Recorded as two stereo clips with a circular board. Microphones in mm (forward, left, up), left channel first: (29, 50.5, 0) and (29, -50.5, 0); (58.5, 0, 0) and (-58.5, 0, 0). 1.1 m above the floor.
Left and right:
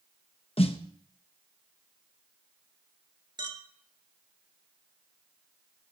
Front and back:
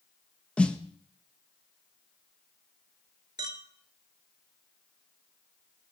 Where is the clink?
130° right, 1.9 m.